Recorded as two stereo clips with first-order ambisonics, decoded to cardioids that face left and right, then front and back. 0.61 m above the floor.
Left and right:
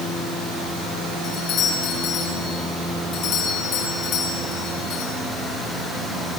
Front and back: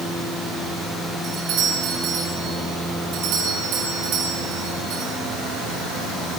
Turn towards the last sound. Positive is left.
turn(degrees=140)